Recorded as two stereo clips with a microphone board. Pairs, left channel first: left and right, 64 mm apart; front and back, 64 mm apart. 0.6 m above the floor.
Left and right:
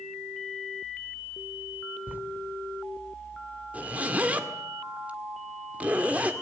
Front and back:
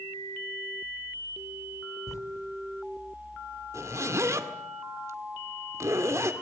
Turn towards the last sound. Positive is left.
turn(degrees=-150)